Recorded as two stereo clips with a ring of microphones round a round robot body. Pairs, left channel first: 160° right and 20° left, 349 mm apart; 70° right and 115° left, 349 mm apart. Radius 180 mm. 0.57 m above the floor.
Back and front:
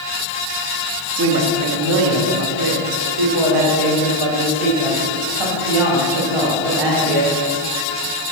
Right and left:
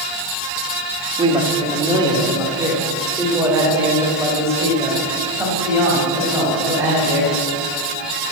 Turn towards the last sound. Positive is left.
turn(degrees=30)